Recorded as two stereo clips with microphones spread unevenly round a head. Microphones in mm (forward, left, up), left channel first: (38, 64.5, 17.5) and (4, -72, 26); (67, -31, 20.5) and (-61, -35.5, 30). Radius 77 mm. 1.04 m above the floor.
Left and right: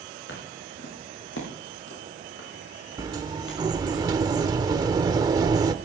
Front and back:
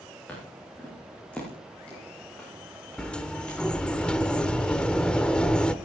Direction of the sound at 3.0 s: 80° right.